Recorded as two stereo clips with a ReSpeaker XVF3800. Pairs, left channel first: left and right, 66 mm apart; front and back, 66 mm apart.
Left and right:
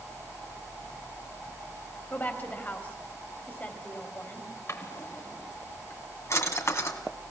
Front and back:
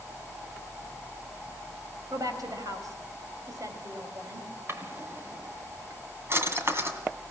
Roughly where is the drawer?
Behind left.